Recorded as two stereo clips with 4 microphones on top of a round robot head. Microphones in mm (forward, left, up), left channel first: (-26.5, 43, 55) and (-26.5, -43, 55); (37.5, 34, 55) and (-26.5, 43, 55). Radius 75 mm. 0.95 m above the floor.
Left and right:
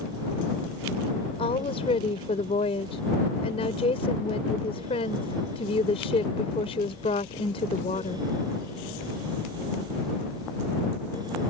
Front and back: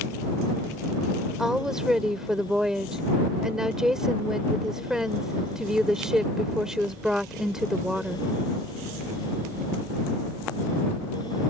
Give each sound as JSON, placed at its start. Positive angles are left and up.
{"t": 1.4, "sound": "a woman speaking", "azimuth_deg": 90}